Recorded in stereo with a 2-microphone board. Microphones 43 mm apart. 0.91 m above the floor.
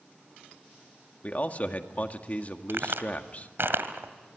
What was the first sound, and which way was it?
A man speaking, 35° left (ahead or behind).